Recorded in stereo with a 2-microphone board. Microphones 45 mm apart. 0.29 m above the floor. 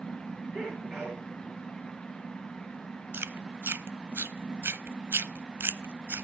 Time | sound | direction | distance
0.5 | a sneeze | 30° right (ahead or behind) | 5.5 m
3.1 | chewing | 55° right (ahead or behind) | 0.6 m